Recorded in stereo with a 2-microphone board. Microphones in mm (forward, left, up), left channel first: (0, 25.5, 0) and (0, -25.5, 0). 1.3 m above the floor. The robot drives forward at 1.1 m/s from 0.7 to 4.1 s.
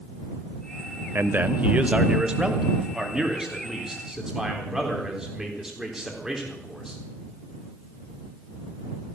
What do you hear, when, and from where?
1.1 s a man speaking: 50° right (ahead or behind), 0.7 m; by 7.0 s 10° right (ahead or behind), 3.5 m